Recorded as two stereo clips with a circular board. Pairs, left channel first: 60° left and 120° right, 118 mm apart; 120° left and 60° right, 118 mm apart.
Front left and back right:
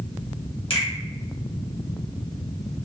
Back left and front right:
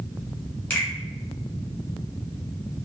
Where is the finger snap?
50° left, 1.8 m.